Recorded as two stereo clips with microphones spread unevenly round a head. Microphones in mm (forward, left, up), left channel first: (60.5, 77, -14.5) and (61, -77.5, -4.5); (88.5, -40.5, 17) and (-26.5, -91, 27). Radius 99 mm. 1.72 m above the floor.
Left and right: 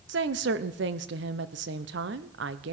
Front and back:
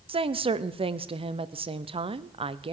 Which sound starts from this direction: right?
A woman speaking, at 0.1 s.